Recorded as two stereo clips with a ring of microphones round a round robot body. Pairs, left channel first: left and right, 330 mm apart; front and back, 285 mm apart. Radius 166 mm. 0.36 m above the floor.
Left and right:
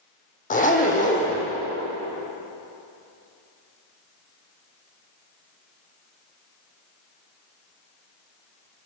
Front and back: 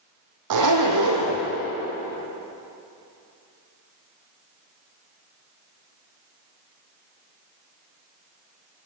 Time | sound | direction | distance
0.5 | a zipper | 160° left | 3.5 m